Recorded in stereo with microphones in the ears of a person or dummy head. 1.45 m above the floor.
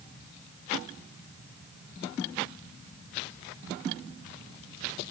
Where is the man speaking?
No man speaking in this recording.